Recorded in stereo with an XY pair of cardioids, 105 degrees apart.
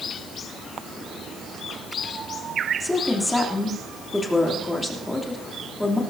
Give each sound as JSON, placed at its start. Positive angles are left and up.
{"t": 2.8, "sound": "a woman speaking", "azimuth_deg": 10, "distance_m": 3.0}